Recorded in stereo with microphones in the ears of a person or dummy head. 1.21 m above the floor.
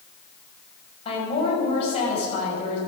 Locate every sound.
1.1 s a woman speaking: 40° left (ahead or behind), 6.5 m